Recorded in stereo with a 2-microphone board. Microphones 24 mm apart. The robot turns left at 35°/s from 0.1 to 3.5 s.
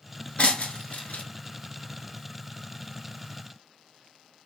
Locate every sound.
0.4 s breaking glass: 55° left (ahead or behind), 1.2 m; by 1.2 s 80° left, 1.2 m